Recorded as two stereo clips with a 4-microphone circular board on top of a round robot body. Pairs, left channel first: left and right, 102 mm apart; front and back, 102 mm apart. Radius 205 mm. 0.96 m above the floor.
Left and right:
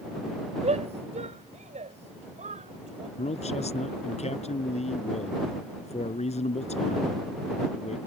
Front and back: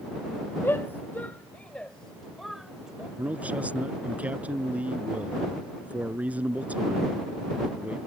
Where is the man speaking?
105° left.